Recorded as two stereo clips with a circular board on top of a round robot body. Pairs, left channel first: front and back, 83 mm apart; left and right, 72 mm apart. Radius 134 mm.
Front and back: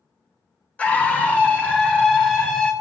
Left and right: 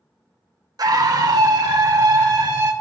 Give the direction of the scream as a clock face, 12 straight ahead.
2 o'clock.